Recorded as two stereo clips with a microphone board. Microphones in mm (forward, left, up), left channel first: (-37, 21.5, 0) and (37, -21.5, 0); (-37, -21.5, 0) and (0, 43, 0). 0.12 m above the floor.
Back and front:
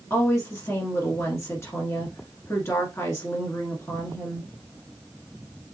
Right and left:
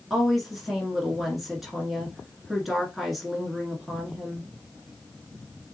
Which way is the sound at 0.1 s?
145° left.